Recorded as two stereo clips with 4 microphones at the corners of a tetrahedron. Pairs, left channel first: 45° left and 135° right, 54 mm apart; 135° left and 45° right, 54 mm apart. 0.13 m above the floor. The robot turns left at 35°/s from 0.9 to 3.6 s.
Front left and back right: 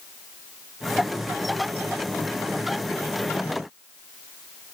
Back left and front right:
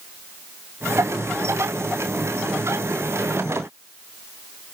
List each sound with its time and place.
Only background noise.